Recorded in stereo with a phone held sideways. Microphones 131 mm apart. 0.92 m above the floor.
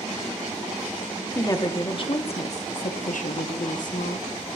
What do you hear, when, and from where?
1.4 s a woman speaking: 25° left (ahead or behind), 1.6 m; by 4.4 s 70° left (ahead or behind), 1.8 m